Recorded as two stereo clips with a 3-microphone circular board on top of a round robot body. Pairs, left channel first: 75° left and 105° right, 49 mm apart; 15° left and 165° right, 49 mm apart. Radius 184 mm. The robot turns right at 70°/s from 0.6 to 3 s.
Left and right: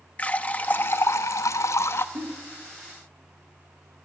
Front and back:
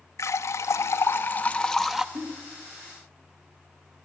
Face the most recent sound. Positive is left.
turn(degrees=-65)